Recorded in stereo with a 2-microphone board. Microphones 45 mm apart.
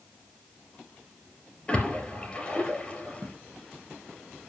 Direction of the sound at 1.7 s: 20° left (ahead or behind).